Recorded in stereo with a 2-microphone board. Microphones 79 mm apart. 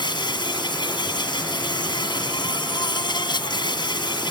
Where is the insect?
75° left (ahead or behind).